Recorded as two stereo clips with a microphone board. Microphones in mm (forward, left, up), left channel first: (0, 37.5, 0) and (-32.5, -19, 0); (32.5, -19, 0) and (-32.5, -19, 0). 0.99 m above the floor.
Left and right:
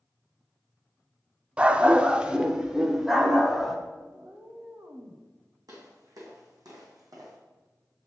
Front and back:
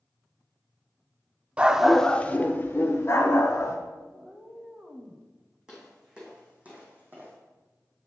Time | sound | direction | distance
1.6 | a dog barking | 155° right | 0.5 m
4.1 | a cat meowing | 125° right | 1.1 m
5.7 | footsteps | 100° right | 3.5 m